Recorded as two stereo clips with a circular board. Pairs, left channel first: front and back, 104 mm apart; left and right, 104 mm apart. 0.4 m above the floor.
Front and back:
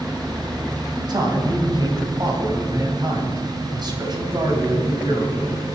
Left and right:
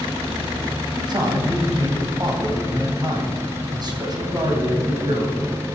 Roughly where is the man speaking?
Behind right.